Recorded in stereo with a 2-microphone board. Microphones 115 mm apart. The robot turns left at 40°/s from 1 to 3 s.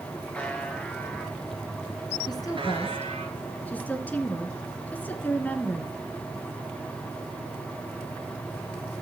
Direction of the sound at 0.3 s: 10° left.